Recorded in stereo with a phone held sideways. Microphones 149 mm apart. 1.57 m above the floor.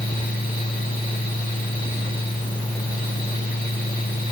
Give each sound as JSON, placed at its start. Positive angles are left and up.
{"t": 0.0, "sound": "a fan", "side_deg": 65, "distance_m": 3.0}